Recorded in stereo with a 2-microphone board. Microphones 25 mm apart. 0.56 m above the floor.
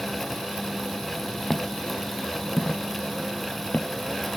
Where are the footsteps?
20° left (ahead or behind); by 3.9 s 75° left (ahead or behind).